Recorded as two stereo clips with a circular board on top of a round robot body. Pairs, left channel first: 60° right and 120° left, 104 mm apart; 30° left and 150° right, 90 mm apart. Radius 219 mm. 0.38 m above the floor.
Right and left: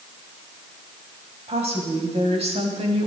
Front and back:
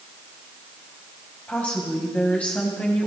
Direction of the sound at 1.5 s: 105° left.